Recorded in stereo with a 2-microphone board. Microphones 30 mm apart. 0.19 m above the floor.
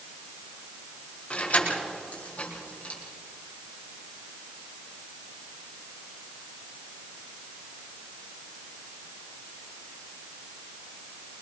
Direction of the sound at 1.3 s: 50° left (ahead or behind).